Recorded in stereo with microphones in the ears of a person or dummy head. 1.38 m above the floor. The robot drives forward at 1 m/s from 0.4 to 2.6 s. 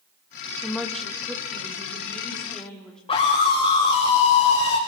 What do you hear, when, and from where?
0.6 s a woman speaking: centre (ahead or behind), 2 m
3.1 s a scream: 30° left (ahead or behind), 5 m